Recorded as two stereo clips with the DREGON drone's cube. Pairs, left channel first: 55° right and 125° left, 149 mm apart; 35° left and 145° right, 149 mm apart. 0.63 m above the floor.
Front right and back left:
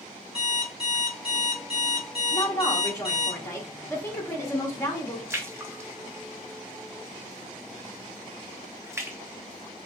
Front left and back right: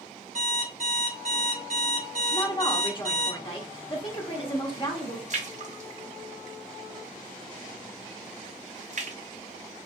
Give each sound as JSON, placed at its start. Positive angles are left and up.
{"t": 0.3, "sound": "an alarm clock", "azimuth_deg": 170, "distance_m": 1.1}
{"t": 2.3, "sound": "a woman speaking", "azimuth_deg": 5, "distance_m": 0.6}
{"t": 5.3, "sound": "a splash", "azimuth_deg": -165, "distance_m": 0.5}